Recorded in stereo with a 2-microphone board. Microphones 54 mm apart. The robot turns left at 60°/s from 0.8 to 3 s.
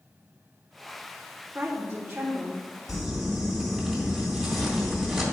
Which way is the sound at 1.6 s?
65° right.